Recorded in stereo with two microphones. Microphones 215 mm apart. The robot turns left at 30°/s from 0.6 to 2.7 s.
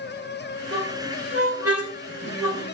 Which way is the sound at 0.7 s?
55° right (ahead or behind).